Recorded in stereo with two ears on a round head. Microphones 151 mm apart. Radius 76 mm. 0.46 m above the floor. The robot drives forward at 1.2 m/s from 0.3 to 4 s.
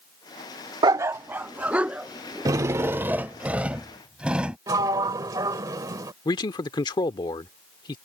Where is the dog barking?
25° right (ahead or behind); by 3.3 s 5° right (ahead or behind).